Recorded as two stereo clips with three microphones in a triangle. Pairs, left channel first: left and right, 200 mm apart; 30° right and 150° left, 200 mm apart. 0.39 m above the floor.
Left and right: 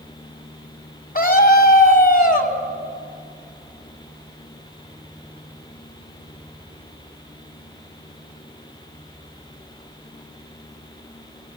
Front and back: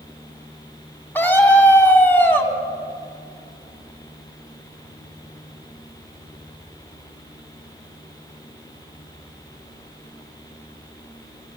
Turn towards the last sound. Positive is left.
turn(degrees=50)